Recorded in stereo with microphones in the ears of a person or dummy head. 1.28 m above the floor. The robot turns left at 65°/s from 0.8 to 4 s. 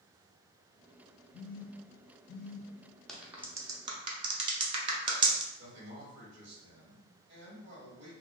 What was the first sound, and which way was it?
A phone buzzing, 65° left (ahead or behind).